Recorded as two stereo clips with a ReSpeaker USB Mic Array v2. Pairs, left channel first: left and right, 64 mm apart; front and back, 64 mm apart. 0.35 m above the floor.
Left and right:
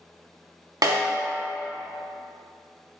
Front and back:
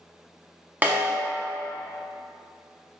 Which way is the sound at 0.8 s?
115° right.